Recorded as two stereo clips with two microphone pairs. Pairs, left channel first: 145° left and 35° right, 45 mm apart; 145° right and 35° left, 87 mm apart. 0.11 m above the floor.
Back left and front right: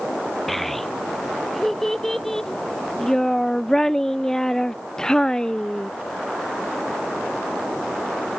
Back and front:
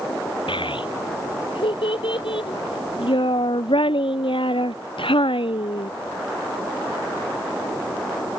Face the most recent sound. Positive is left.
turn(degrees=-145)